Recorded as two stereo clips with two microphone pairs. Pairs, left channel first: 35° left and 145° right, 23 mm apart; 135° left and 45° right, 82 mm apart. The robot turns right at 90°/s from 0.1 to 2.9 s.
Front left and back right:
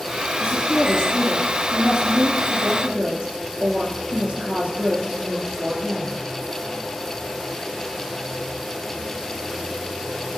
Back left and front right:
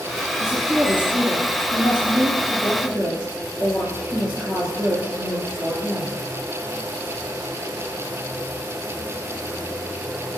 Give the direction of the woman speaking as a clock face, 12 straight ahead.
11 o'clock.